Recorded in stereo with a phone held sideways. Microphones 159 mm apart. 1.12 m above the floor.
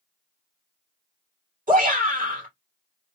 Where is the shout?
55° right (ahead or behind), 2 m.